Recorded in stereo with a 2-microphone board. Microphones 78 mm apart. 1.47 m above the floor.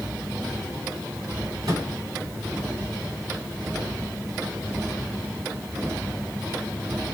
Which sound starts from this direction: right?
A microwave, at 1.6 s.